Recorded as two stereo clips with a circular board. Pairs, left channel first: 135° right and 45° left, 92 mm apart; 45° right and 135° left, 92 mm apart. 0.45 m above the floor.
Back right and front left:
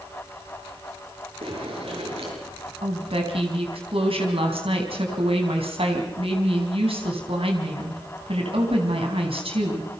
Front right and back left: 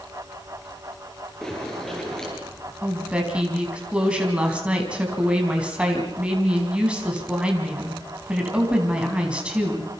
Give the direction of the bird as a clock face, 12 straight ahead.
11 o'clock.